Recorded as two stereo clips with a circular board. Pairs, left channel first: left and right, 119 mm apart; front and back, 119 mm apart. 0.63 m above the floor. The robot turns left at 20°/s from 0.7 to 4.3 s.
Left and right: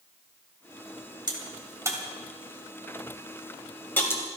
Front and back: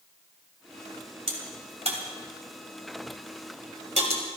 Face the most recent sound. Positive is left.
turn(degrees=155)